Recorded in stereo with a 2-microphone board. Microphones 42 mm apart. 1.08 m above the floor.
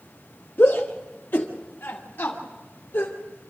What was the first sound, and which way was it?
A shout, 70° left (ahead or behind).